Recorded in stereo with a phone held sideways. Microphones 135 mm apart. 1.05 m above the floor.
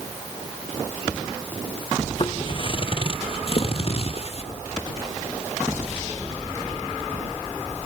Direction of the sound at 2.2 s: 35° left (ahead or behind).